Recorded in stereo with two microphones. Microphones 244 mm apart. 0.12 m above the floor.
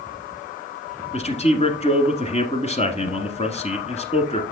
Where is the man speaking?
25° left (ahead or behind), 1.2 m.